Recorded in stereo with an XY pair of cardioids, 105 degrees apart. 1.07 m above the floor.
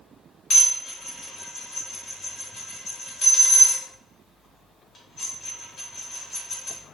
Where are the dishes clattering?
60° left, 1.1 m.